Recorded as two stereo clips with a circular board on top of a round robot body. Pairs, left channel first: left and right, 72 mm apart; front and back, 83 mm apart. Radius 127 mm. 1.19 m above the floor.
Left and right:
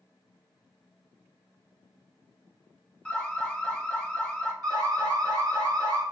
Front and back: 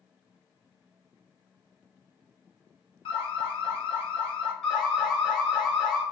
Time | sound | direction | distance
3.0 | an alarm | 10° left | 0.6 m
4.6 | an alarm | 85° right | 2 m